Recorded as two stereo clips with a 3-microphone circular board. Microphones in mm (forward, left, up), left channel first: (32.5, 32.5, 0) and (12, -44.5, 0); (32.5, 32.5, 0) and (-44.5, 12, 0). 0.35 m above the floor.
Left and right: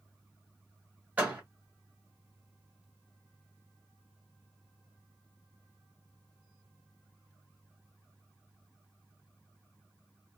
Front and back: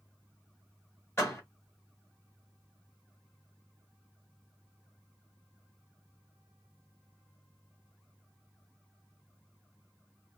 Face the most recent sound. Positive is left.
turn(degrees=-35)